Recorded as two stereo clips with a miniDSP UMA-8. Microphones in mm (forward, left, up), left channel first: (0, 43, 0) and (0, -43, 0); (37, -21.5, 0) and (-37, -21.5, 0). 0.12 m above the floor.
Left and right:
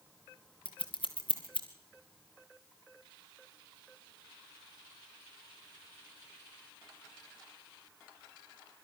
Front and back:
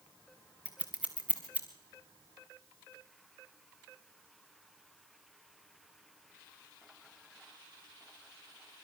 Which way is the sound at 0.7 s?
105° left.